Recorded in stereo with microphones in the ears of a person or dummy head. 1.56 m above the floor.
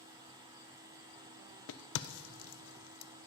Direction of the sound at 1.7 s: 80° left.